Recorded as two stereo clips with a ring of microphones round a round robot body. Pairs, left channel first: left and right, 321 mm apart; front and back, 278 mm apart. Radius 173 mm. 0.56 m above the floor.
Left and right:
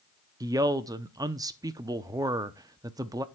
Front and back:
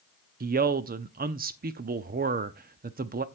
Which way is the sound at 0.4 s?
160° right.